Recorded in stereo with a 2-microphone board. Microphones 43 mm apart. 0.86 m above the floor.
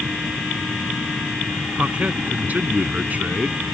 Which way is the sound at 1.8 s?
35° right (ahead or behind).